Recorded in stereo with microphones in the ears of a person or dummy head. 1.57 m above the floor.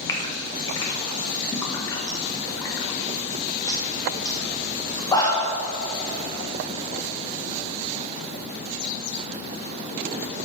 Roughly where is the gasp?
Left.